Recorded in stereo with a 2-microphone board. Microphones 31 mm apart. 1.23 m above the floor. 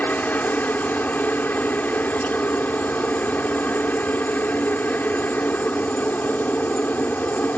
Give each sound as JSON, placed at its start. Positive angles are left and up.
{"t": 0.0, "sound": "a helicopter", "side_deg": 70}